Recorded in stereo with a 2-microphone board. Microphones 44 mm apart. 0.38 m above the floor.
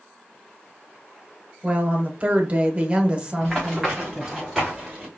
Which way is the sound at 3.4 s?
5° left (ahead or behind).